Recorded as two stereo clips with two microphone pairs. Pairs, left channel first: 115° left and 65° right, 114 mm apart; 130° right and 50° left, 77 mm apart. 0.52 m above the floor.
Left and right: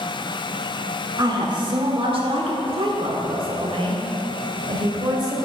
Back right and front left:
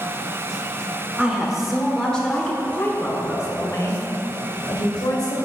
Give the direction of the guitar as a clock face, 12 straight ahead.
No guitar in this recording.